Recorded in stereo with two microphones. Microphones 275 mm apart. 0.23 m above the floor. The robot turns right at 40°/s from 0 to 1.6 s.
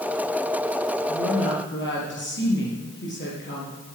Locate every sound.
1.1 s a woman speaking: 60° left (ahead or behind), 5 m; by 4.0 s 45° left (ahead or behind), 5 m